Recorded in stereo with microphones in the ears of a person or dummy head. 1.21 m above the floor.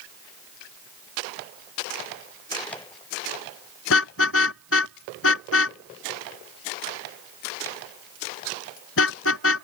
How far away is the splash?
I don't hear a splash.